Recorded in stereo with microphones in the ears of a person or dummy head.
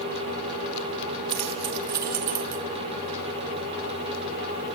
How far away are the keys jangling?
About 1.2 m.